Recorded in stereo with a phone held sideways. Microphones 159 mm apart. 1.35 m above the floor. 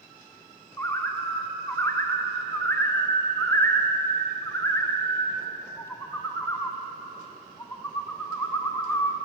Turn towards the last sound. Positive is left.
turn(degrees=15)  # may be behind; listen again after turning